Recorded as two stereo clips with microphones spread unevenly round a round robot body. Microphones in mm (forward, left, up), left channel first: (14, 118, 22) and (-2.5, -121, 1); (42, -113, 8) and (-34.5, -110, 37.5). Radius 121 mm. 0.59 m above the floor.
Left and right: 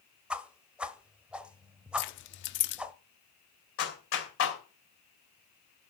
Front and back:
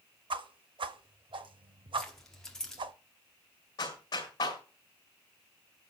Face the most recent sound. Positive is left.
turn(degrees=50)